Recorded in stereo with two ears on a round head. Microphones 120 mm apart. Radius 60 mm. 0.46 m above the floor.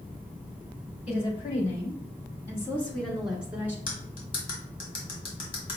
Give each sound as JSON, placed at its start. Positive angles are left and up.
{"t": 1.1, "sound": "a woman speaking", "side_deg": 50, "distance_m": 1.3}
{"t": 3.9, "sound": "cutlery clinking", "side_deg": 40, "distance_m": 1.5}